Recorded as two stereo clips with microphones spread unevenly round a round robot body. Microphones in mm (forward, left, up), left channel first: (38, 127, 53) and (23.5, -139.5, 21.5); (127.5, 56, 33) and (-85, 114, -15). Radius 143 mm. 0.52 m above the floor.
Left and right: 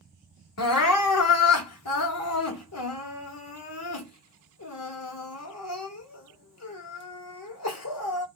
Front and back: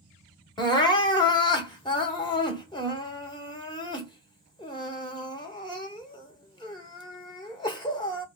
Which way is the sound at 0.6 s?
60° left.